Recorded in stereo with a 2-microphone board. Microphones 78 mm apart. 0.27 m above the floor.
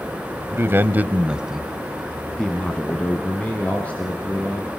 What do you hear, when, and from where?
0.5 s a man speaking: 35° right (ahead or behind), 1.5 m; by 4.7 s 20° left (ahead or behind), 5.5 m